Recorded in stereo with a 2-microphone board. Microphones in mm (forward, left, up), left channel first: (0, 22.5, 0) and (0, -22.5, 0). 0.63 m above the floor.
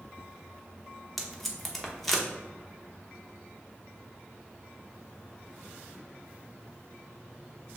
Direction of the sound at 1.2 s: 5° left (ahead or behind).